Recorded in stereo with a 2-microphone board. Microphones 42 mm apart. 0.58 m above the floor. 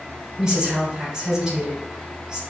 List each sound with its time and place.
0.4 s a woman speaking: 15° right (ahead or behind), 2.5 m